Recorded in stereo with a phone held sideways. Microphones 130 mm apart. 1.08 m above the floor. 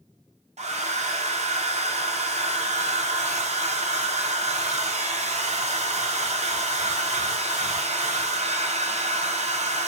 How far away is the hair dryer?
About 0.5 m.